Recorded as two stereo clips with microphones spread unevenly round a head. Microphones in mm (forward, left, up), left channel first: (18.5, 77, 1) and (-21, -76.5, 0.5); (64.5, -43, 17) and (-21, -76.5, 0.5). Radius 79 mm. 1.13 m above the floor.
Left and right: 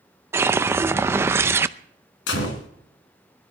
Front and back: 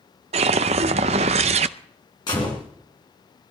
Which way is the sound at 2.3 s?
80° left.